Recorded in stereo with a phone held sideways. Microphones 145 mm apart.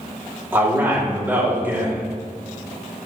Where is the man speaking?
15° right (ahead or behind), 2.5 m.